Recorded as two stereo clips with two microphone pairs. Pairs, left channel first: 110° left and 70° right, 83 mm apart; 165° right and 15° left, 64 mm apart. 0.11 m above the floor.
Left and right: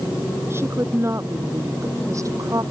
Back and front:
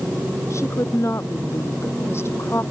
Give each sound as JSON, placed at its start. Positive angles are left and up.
{"t": 0.5, "sound": "a woman speaking", "azimuth_deg": -125}